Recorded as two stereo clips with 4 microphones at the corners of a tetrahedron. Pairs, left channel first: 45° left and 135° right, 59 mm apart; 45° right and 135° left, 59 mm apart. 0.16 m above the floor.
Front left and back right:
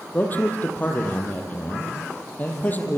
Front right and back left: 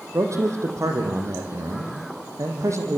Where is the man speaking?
105° left, 5.5 m.